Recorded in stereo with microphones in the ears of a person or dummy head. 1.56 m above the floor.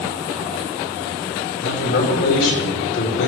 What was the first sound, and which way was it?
A man speaking, 75° left (ahead or behind).